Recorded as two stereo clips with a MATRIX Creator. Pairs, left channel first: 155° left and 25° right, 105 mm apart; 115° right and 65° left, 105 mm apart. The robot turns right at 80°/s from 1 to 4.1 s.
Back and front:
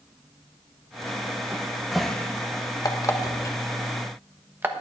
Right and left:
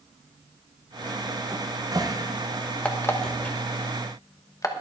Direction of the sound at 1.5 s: 30° left.